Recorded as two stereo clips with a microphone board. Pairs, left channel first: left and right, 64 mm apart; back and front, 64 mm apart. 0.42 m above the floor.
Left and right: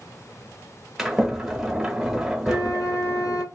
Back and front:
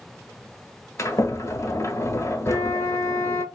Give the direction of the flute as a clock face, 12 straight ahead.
8 o'clock.